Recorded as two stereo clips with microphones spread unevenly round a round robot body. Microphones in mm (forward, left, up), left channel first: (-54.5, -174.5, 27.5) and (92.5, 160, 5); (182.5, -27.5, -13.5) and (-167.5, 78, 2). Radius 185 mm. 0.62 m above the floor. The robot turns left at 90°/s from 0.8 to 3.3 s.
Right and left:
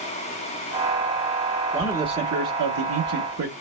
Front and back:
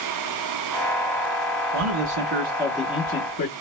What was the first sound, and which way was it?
A man speaking, 165° left.